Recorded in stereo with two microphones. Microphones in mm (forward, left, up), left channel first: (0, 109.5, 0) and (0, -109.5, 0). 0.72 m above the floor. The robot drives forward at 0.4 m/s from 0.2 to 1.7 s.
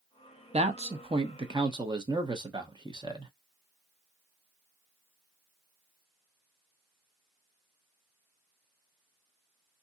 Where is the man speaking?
30° right (ahead or behind), 0.6 m; by 3.3 s 20° right (ahead or behind), 0.8 m.